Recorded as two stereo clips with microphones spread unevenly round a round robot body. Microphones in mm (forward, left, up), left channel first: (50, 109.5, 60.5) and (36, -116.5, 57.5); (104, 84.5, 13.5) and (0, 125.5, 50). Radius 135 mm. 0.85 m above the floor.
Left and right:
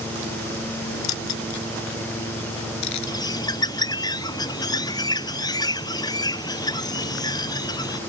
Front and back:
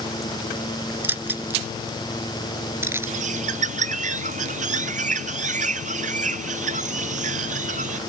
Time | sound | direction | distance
1.0 | keys jangling | 85° left | ?
3.1 | a bird | 165° left | ?